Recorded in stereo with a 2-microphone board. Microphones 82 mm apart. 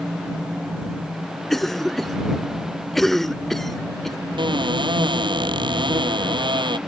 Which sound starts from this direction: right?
A cupboard door, at 4.4 s.